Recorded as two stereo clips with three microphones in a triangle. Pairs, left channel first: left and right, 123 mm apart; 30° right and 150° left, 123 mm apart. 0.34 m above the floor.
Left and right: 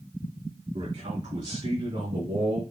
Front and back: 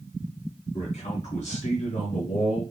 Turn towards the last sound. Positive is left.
turn(degrees=-40)